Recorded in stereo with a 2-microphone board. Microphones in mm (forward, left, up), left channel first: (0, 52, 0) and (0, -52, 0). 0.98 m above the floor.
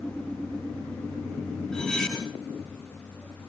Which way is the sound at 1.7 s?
5° left (ahead or behind).